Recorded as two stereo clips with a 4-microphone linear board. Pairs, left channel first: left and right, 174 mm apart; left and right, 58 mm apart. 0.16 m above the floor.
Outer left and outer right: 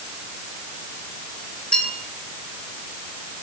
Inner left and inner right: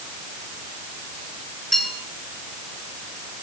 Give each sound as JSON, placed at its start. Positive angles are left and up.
{"t": 1.7, "sound": "a bell", "side_deg": 5, "distance_m": 3.5}